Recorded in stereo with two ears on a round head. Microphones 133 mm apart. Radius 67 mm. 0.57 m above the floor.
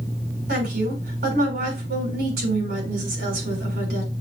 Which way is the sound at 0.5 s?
80° right.